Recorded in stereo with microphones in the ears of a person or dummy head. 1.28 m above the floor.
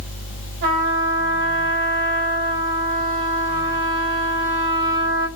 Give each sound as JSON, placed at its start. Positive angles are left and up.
{"t": 0.6, "sound": "a trumpet", "side_deg": -65, "distance_m": 1.7}